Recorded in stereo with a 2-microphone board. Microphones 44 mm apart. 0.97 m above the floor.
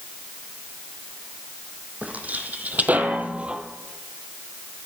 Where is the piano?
I don't hear a piano.